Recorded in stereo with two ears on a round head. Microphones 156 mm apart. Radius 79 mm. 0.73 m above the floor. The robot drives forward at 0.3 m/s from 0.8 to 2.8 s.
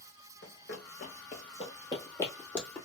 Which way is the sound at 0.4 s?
60° left (ahead or behind).